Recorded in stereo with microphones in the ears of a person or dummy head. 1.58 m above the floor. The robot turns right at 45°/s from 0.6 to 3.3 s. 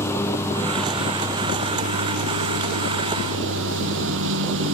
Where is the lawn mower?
165° left; by 4.8 s 70° right.